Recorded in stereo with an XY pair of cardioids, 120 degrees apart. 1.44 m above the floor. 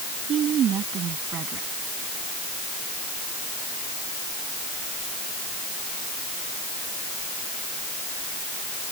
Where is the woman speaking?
55° right.